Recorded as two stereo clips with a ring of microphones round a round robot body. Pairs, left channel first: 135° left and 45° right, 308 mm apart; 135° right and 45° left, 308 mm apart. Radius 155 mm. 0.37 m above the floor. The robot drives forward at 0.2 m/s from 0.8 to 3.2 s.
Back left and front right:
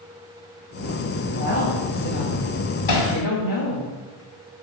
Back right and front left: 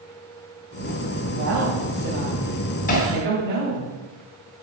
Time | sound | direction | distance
1.3 | a woman speaking | 85° left | 2.5 m
2.9 | hammering | 160° left | 2.5 m